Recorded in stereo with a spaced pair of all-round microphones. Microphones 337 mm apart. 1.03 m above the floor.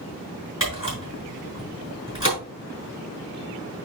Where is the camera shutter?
35° left (ahead or behind), 4.5 m.